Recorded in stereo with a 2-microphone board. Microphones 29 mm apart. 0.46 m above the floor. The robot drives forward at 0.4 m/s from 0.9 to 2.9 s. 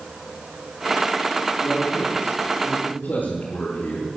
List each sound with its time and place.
1.6 s a man speaking: 75° left (ahead or behind), 6.5 m; by 4.1 s 70° left (ahead or behind), 6.5 m